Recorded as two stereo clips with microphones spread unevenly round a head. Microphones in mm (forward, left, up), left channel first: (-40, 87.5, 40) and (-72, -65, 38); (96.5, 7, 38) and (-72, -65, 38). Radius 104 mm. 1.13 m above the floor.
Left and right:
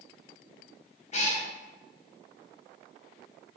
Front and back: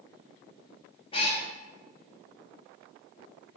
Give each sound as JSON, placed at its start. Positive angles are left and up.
{"t": 1.1, "sound": "a cat meowing", "azimuth_deg": 75, "distance_m": 0.7}